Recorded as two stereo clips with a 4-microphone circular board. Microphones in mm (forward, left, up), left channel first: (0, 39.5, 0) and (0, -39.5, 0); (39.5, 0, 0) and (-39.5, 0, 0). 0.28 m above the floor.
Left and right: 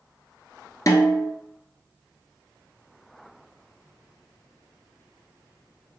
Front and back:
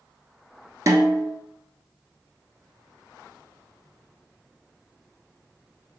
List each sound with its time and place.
0.9 s a snare drum: 135° left, 0.8 m